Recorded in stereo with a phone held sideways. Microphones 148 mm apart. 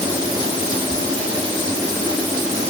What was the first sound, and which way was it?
Only background noise.